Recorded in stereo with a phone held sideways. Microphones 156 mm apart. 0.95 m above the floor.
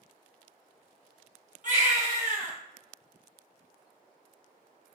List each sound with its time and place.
1.6 s a baby crying: 55° right (ahead or behind), 1.0 m